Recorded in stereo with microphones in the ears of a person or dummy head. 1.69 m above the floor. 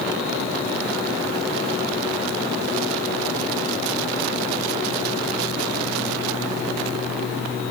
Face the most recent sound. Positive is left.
No sound to turn to.